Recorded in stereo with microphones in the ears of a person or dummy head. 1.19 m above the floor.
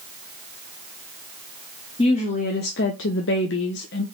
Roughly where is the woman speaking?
Left.